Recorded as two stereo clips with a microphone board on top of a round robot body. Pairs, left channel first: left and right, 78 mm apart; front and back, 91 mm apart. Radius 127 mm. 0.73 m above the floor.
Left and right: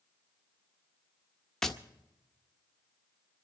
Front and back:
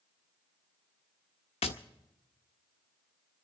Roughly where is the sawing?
I don't hear sawing.